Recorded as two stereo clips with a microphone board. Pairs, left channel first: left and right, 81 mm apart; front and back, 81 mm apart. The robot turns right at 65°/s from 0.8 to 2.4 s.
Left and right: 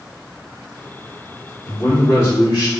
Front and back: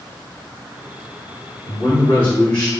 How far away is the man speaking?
About 1.9 m.